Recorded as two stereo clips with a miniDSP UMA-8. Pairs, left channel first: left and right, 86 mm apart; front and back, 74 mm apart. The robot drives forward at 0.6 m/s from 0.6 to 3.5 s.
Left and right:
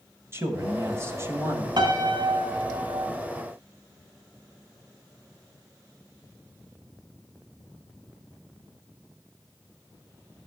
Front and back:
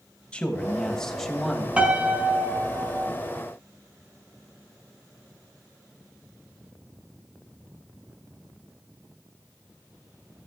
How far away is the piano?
About 2.0 m.